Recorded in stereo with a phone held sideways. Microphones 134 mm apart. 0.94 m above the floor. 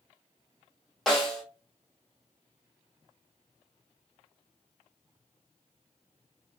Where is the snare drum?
Centre (ahead or behind), 0.9 m.